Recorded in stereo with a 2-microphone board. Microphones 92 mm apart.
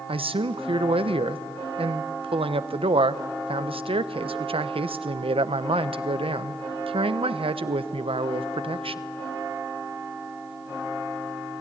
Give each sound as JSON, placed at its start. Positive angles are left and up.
{"t": 0.1, "sound": "a man speaking", "side_deg": -85, "distance_m": 0.9}